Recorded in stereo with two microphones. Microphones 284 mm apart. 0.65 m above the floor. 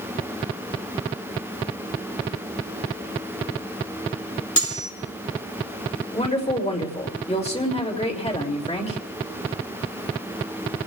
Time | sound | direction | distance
4.6 | cutlery clinking | 80° left | 4.5 m
6.1 | a woman speaking | 20° left (ahead or behind) | 3 m